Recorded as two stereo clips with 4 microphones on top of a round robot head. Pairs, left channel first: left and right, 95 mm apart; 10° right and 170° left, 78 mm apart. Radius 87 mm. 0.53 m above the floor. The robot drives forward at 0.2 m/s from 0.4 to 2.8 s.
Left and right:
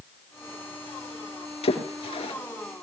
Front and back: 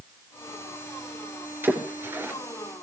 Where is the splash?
110° left, 4 m.